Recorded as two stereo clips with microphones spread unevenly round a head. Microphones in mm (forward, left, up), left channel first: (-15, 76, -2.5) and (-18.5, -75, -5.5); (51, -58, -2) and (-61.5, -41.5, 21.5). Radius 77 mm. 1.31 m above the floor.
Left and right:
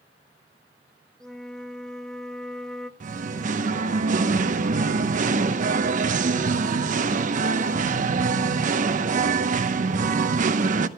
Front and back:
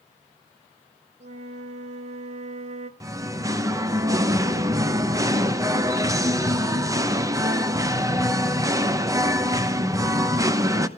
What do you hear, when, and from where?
1.2 s a flute: 175° left, 1.0 m
3.0 s singing: 130° right, 0.9 m